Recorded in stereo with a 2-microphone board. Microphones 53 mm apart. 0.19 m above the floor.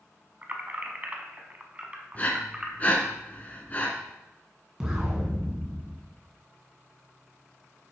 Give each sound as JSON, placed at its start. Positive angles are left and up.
{"t": 0.4, "sound": "keys jangling", "side_deg": -30, "distance_m": 1.1}
{"t": 2.1, "sound": "breathing", "side_deg": 30, "distance_m": 1.3}
{"t": 4.8, "sound": "an explosion", "side_deg": -15, "distance_m": 2.0}